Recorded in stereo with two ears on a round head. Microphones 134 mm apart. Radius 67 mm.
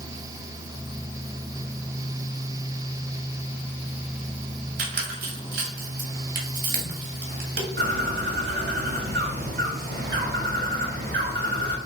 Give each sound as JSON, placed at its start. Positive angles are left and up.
{"t": 4.8, "sound": "a squeak", "side_deg": -70, "distance_m": 1.9}
{"t": 7.8, "sound": "a bird", "side_deg": -70, "distance_m": 2.0}